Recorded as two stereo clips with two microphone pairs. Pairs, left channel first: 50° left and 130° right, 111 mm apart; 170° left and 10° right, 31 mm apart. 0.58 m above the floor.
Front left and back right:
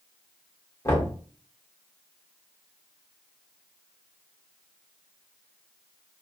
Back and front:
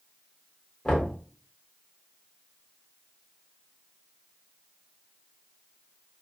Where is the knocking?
110° left, 1.5 m.